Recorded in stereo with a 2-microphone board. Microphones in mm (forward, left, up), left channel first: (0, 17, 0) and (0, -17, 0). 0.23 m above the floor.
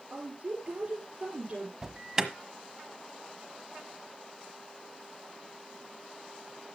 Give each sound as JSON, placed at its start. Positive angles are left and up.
{"t": 0.1, "sound": "a woman speaking", "side_deg": -50, "distance_m": 4.0}
{"t": 1.8, "sound": "an alarm", "side_deg": -20, "distance_m": 1.2}